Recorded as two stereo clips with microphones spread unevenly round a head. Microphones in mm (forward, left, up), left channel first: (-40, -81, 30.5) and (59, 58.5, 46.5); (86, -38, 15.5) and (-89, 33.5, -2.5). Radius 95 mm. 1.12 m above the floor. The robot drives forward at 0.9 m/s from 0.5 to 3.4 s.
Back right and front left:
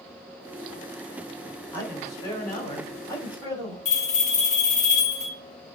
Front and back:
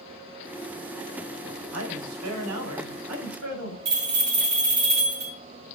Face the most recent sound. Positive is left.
turn(degrees=-170)